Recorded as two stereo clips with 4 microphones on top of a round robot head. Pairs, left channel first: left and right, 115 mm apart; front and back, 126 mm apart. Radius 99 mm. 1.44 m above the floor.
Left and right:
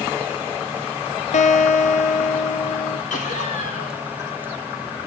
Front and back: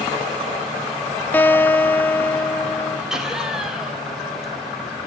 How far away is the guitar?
About 0.8 m.